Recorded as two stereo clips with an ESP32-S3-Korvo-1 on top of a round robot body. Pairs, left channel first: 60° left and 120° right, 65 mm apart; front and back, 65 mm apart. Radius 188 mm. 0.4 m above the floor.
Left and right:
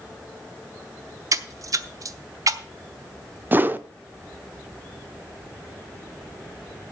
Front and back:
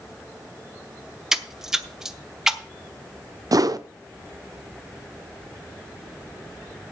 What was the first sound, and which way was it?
A splash, 95° right.